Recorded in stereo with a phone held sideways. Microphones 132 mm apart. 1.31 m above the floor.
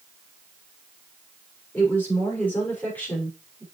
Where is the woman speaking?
15° left (ahead or behind), 6 m.